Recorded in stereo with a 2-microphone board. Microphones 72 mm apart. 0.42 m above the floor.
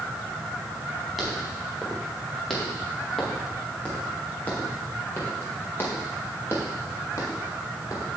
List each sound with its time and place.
1.2 s footsteps: centre (ahead or behind), 5 m; by 8.1 s 45° left (ahead or behind), 4.5 m